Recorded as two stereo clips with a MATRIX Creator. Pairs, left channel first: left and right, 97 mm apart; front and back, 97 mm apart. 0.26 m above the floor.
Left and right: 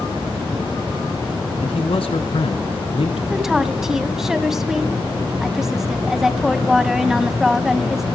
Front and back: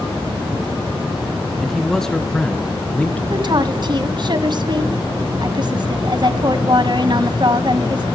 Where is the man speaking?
90° left, 2.5 m; by 3.2 s 75° left, 3 m.